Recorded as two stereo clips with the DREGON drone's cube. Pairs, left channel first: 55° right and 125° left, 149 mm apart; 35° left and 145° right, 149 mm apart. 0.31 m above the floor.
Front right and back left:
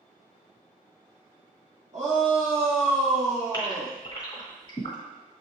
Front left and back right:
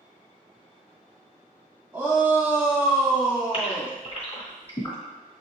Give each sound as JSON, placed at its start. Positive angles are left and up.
{"t": 1.9, "sound": "a shout", "azimuth_deg": 140, "distance_m": 2.0}
{"t": 3.5, "sound": "a gasp", "azimuth_deg": 0, "distance_m": 2.0}